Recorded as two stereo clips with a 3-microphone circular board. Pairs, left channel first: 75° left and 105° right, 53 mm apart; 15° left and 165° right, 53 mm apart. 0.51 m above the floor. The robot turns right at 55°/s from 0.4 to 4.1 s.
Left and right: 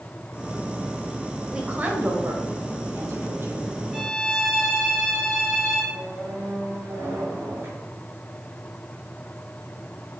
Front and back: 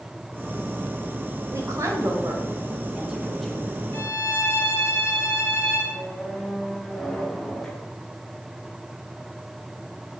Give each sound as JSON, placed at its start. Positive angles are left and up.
{"t": 1.5, "sound": "a woman speaking", "azimuth_deg": 180, "distance_m": 2.0}
{"t": 3.9, "sound": "a violin", "azimuth_deg": -30, "distance_m": 3.5}
{"t": 5.9, "sound": "a squeak", "azimuth_deg": -70, "distance_m": 2.5}